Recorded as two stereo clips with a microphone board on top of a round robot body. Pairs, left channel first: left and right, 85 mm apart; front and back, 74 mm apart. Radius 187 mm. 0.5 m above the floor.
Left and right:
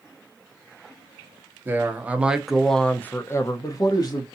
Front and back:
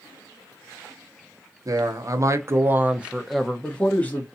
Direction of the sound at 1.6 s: 155° right.